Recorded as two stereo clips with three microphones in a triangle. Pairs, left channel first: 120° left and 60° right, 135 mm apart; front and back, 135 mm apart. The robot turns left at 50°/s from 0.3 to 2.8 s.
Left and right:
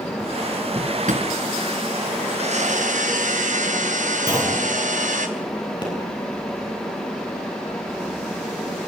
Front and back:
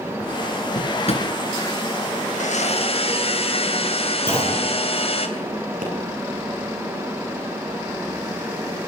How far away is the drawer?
About 3.5 m.